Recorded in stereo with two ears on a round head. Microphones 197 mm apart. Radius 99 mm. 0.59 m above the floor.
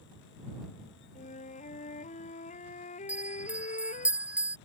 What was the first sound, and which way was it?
A flute, 35° left (ahead or behind).